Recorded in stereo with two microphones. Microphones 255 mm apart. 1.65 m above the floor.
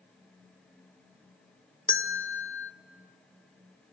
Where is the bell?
50° left (ahead or behind), 0.7 m.